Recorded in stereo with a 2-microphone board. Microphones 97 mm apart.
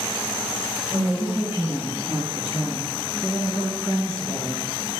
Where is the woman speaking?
20° right (ahead or behind), 1.6 m; by 4.6 s 10° right (ahead or behind), 6 m.